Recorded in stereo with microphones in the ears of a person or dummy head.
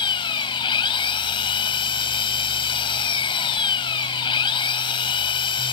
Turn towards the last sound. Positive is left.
turn(degrees=30)  # may be behind; listen again after turning